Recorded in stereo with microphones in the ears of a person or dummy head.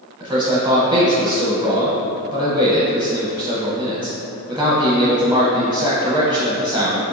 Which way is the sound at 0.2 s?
20° right (ahead or behind).